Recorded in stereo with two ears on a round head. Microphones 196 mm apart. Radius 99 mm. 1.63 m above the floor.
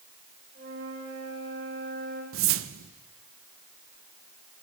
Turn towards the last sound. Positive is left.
turn(degrees=-65)  # may be behind; listen again after turning